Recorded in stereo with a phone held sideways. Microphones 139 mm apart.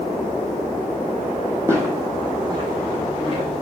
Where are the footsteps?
20° right (ahead or behind), 2.5 m; by 3.6 s 50° right (ahead or behind), 4 m.